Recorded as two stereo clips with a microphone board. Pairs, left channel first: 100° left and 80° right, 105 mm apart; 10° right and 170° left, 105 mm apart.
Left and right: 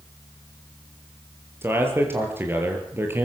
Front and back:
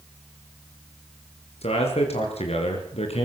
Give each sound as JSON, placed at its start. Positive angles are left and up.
{"t": 1.6, "sound": "a man speaking", "azimuth_deg": -10, "distance_m": 6.0}